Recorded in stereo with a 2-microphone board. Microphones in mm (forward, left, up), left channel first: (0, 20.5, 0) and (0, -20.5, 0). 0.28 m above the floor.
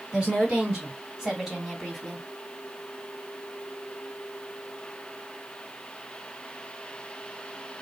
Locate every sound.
0.1 s a woman speaking: 25° right (ahead or behind), 2.5 m; by 2.3 s 10° left (ahead or behind), 1.8 m